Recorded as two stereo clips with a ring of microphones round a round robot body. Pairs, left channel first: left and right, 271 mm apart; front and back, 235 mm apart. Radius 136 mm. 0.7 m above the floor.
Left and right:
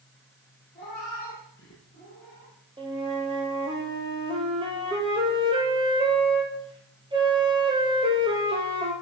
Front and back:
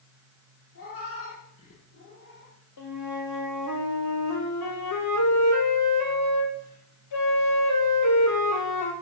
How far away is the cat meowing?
About 8 m.